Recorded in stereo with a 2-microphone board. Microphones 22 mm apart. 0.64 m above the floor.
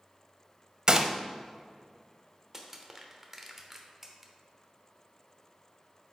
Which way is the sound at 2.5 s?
20° right (ahead or behind).